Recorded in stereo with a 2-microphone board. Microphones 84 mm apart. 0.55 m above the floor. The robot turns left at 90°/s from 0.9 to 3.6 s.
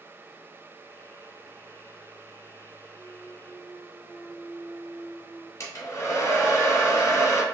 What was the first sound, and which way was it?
A clunk, 90° right.